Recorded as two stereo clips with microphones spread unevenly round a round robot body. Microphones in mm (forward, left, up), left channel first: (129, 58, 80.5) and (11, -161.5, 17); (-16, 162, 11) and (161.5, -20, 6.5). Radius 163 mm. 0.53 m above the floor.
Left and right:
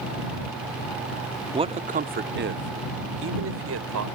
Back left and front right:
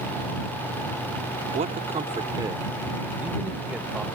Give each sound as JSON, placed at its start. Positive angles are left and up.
{"t": 1.5, "sound": "a man speaking", "azimuth_deg": -90}